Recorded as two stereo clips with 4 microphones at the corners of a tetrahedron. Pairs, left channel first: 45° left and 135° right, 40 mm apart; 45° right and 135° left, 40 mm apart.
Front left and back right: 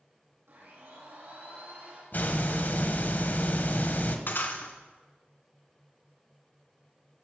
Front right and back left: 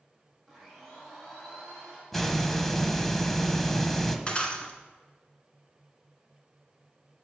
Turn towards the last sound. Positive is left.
turn(degrees=15)